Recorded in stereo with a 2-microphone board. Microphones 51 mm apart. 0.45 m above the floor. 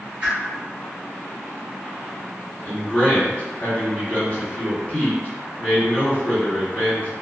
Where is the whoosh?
25° right (ahead or behind), 2.0 m.